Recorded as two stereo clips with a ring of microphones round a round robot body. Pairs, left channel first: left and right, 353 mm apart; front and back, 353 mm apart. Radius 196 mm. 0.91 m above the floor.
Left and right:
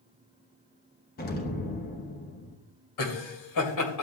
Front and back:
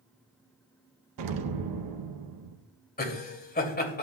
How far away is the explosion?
About 0.9 m.